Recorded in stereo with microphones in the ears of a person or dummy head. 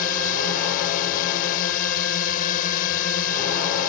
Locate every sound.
0.0 s a drone: 50° left (ahead or behind)